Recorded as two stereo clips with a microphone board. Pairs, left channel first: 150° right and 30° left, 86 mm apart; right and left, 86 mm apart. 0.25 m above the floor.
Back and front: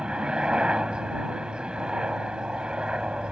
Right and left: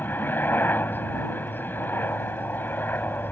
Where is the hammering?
I don't hear hammering.